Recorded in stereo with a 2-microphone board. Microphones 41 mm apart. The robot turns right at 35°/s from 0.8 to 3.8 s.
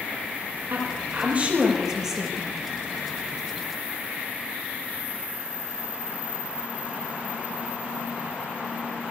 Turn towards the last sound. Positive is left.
turn(degrees=50)